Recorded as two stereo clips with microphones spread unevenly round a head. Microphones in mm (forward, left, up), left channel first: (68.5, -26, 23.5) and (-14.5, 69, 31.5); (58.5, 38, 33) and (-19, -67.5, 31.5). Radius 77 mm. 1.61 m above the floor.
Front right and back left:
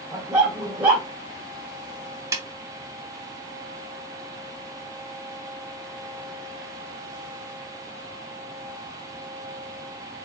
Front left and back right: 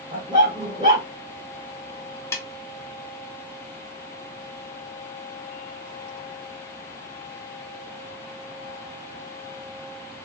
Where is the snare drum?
105° left, 0.6 m.